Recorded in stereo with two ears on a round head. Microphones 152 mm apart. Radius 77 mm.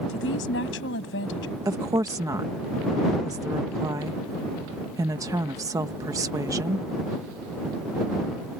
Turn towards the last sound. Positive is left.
turn(degrees=-20)  # may be behind; listen again after turning